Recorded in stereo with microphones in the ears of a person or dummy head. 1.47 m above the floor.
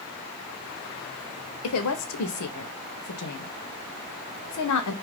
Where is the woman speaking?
75° left (ahead or behind), 0.7 m.